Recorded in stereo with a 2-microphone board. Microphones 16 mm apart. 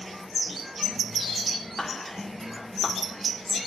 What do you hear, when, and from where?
1.8 s whispering: 25° left (ahead or behind), 1.2 m